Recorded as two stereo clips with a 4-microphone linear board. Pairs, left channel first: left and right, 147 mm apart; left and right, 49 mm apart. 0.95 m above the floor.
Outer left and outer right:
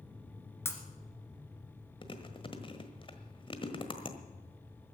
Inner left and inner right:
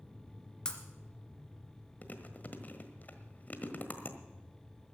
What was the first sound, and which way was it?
Breaking glass, 15° left (ahead or behind).